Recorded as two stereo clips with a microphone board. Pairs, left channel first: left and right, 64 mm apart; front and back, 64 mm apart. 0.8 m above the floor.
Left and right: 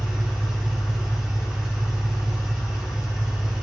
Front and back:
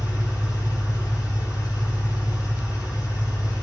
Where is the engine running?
15° right, 5 m.